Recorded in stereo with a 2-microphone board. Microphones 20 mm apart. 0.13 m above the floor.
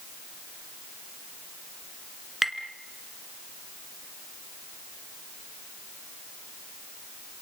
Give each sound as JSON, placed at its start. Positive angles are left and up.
{"t": 2.4, "sound": "tapping", "side_deg": -5, "distance_m": 1.5}